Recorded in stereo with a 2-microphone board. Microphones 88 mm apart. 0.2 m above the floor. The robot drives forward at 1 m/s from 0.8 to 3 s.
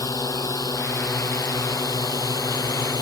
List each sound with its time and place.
0.0 s a drone: 45° left (ahead or behind); by 3.0 s 50° left (ahead or behind)